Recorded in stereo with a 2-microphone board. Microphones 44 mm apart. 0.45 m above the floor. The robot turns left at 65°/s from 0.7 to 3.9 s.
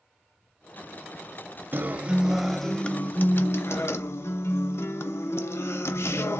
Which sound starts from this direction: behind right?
A guitar, at 1.7 s.